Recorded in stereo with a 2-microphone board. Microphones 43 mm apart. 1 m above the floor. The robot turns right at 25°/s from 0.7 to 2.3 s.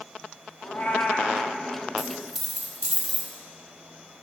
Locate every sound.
0.6 s a cat meowing: 45° left (ahead or behind), 0.7 m; by 1.5 s 30° left (ahead or behind), 0.7 m
2.0 s a dropped coin: centre (ahead or behind), 0.9 m; by 3.3 s 5° right (ahead or behind), 0.9 m